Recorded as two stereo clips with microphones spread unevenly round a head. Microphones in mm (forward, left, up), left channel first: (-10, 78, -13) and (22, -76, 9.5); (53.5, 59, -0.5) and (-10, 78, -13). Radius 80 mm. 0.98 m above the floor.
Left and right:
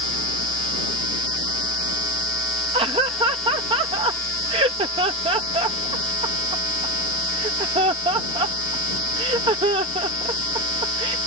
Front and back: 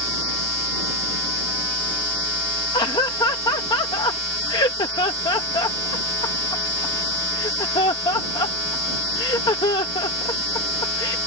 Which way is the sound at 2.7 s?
15° right.